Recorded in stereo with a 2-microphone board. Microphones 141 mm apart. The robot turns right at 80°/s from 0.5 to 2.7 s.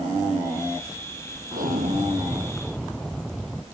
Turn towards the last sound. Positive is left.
turn(degrees=5)